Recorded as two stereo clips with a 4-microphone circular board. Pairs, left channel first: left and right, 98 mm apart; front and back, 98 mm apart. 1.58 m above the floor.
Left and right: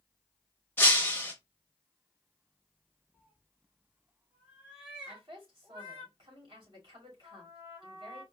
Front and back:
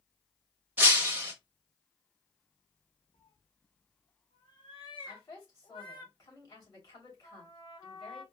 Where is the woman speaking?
55° right, 2.5 m.